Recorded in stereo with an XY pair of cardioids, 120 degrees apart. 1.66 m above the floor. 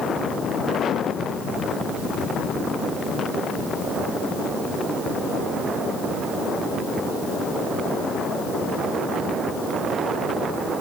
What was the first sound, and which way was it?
Only background noise.